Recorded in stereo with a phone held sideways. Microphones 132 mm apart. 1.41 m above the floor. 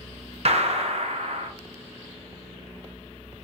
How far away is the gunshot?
About 0.8 m.